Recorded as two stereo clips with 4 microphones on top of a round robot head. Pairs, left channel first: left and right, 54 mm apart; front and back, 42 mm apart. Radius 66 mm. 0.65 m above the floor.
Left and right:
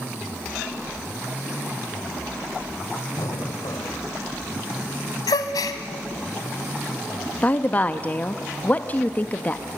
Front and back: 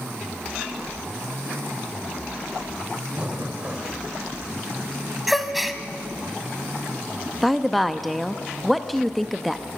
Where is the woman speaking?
85° left, 0.7 m.